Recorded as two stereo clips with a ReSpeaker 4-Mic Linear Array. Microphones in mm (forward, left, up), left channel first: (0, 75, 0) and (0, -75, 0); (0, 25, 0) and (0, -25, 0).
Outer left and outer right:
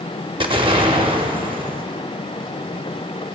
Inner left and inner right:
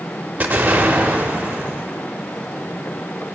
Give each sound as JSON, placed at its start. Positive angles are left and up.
{"t": 0.4, "sound": "an explosion", "side_deg": -35, "distance_m": 0.8}